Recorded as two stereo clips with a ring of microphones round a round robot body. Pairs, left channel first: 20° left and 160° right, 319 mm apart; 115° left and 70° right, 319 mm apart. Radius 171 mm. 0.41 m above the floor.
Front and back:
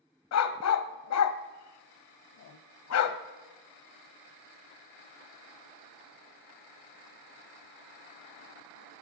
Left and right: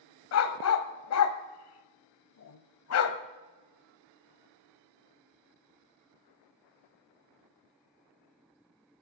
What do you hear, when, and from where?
0.3 s a dog barking: 65° left, 0.8 m